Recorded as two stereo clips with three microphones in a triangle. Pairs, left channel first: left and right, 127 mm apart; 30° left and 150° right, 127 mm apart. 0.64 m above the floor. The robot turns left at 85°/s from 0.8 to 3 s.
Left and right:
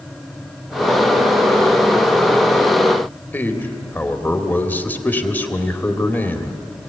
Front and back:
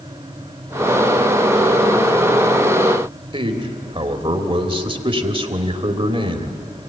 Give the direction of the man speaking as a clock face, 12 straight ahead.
6 o'clock.